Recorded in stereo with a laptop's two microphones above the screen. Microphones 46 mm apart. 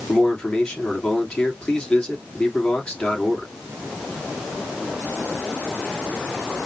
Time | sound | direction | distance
0.1 | a man speaking | 25° left (ahead or behind) | 2.5 m